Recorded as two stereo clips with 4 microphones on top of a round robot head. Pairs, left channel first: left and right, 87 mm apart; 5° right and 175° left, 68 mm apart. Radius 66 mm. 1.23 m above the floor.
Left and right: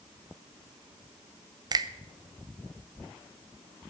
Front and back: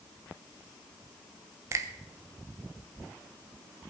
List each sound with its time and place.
1.7 s a finger snap: 135° right, 0.8 m